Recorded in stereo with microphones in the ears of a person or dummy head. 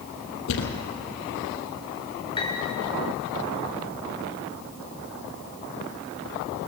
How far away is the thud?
About 2.5 m.